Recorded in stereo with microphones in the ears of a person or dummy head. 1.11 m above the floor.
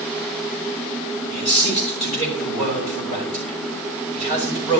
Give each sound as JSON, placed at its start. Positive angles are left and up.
{"t": 1.3, "sound": "a man speaking", "side_deg": 35, "distance_m": 6.0}